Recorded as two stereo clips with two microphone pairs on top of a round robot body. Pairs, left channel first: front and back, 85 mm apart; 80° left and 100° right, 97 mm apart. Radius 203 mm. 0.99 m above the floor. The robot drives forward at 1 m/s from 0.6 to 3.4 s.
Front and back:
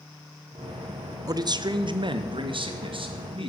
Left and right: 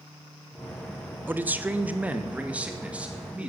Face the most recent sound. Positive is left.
turn(degrees=-175)